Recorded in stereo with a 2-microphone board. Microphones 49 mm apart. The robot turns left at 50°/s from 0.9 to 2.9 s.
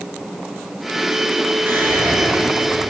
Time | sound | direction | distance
1.7 | whispering | 50° right | 1.1 m